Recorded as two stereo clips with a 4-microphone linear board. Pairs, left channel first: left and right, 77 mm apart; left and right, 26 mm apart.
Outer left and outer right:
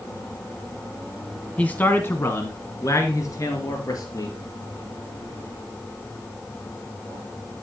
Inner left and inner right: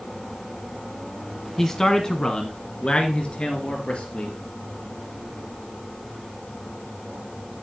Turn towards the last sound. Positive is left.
turn(degrees=50)  # may be behind; listen again after turning